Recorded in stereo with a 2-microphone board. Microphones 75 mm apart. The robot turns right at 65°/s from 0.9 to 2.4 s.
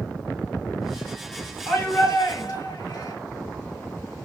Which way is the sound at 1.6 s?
25° left.